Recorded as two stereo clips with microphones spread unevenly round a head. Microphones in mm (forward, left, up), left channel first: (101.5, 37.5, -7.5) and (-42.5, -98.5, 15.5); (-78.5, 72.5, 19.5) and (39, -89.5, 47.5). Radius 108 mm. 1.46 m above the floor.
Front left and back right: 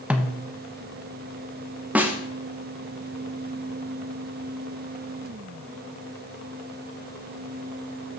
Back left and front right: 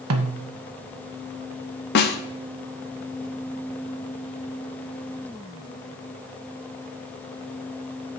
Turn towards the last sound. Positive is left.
turn(degrees=150)